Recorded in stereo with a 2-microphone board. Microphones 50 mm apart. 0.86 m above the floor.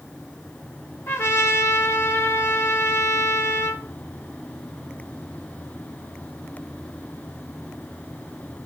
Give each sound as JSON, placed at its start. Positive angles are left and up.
{"t": 1.1, "sound": "a trumpet", "side_deg": 50, "distance_m": 2.5}